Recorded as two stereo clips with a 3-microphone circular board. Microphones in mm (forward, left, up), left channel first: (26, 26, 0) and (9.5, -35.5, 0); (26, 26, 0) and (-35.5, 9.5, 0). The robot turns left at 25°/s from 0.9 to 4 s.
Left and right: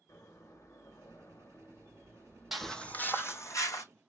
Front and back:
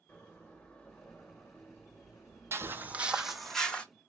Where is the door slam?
80° left, 1.1 m; by 3.5 s 15° left, 1.1 m.